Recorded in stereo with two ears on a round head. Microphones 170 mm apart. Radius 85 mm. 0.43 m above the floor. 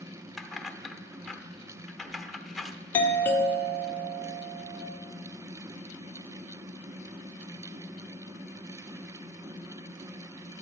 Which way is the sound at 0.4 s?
Centre (ahead or behind).